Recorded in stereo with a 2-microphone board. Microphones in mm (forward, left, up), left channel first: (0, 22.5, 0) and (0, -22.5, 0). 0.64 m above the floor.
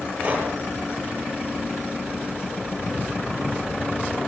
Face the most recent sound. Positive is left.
turn(degrees=-25)  # may be behind; listen again after turning